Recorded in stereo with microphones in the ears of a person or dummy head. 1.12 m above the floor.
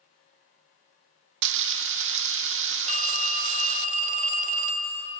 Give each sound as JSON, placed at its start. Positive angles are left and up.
{"t": 1.4, "sound": "frying", "side_deg": -65, "distance_m": 0.7}
{"t": 2.9, "sound": "a phone ringing", "side_deg": -40, "distance_m": 1.7}